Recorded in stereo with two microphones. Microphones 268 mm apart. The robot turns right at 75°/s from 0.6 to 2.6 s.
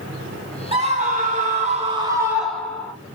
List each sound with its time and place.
0.7 s a scream: 20° right (ahead or behind), 1.6 m; by 2.9 s 5° left (ahead or behind), 1.6 m